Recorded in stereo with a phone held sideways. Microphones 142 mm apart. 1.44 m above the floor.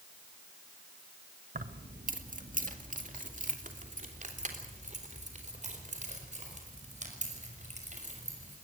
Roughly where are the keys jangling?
Right.